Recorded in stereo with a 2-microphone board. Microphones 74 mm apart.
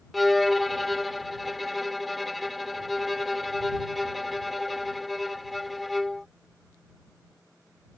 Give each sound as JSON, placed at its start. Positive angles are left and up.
{"t": 0.1, "sound": "a violin", "side_deg": 0}